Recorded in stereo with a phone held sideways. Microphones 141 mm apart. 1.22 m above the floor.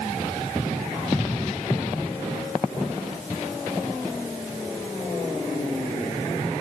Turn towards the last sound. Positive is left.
No sound to turn to.